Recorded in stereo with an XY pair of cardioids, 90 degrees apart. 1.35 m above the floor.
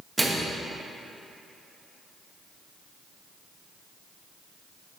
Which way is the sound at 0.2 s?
20° right.